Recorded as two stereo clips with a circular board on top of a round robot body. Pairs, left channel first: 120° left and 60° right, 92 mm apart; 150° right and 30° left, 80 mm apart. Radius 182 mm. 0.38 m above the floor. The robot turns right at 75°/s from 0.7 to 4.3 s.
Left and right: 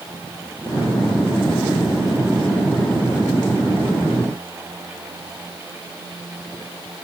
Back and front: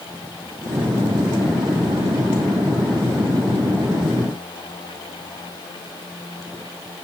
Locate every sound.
Only background noise.